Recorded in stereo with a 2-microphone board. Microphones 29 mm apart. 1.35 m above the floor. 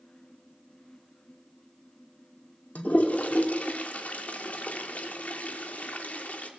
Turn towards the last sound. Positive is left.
turn(degrees=60)  # may be behind; listen again after turning